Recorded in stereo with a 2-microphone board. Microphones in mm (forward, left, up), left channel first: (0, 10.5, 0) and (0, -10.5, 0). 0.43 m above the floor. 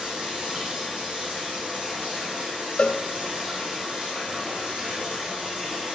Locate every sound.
0.0 s running water: 70° right (ahead or behind), 5.5 m
2.8 s a cowbell: 55° left (ahead or behind), 1.0 m